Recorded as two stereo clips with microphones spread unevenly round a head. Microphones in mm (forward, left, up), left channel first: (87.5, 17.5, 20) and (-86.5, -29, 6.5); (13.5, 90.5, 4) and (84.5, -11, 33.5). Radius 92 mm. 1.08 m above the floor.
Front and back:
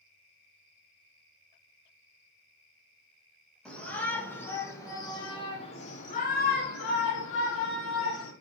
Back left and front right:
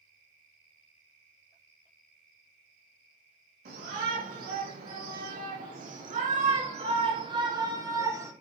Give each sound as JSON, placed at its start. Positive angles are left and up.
{"t": 3.6, "sound": "a shout", "azimuth_deg": -70, "distance_m": 4.5}